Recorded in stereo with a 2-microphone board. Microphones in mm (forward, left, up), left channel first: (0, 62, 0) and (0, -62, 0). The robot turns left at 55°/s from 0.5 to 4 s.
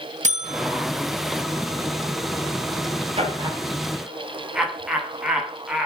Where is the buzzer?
75° right (ahead or behind), 2.5 m; by 0.9 s 85° right, 2.5 m.